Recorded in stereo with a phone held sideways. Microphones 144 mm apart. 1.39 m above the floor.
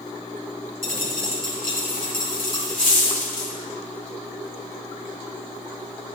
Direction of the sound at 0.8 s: 75° left (ahead or behind).